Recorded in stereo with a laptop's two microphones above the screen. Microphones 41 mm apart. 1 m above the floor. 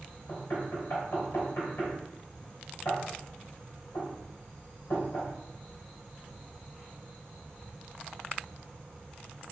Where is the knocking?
65° left (ahead or behind), 3.5 m.